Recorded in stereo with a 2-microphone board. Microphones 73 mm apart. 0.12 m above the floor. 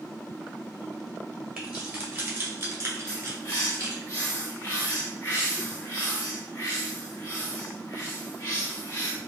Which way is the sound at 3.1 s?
30° left (ahead or behind).